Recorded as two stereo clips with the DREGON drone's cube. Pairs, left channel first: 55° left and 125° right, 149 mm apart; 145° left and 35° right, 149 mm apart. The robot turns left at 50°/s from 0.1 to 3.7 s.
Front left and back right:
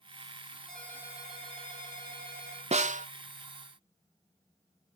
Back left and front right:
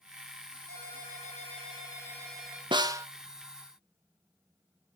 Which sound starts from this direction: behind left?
A ringtone, at 0.7 s.